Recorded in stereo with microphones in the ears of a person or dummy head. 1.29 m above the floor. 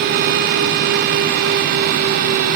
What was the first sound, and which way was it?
Only background noise.